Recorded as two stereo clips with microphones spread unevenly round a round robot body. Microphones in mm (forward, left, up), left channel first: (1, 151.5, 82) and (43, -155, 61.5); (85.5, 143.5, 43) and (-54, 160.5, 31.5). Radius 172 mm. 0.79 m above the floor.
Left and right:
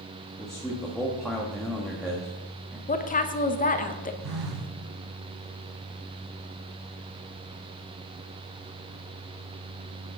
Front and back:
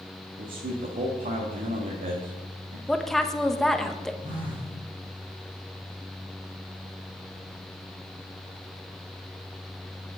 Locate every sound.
0.4 s a man speaking: 170° right, 1.4 m
2.9 s a woman speaking: 90° left, 0.9 m
4.2 s a phone buzzing: 100° right, 3 m